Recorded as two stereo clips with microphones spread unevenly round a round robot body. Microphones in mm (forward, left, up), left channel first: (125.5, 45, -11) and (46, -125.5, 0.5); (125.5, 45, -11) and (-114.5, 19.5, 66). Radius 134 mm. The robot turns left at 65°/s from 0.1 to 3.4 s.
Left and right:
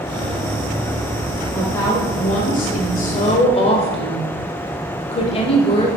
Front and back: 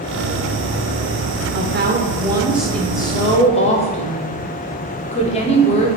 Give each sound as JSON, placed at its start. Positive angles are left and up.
{"t": 1.5, "sound": "a woman speaking", "azimuth_deg": 150, "distance_m": 1.0}